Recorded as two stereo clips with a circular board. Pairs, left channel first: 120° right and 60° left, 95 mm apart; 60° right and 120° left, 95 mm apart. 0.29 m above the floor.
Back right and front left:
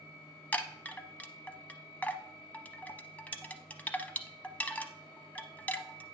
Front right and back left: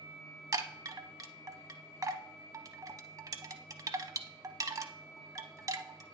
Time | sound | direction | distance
0.5 | a chime | 170° left | 0.6 m